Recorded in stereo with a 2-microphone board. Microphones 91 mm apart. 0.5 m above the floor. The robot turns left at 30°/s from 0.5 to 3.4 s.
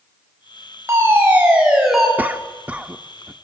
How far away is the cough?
About 0.7 m.